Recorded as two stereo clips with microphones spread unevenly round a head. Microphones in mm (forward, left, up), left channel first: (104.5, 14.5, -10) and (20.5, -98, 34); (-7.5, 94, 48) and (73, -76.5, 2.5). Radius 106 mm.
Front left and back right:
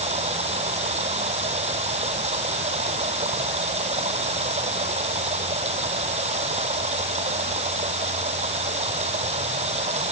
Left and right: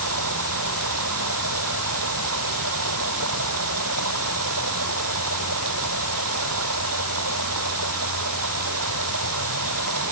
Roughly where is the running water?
Right.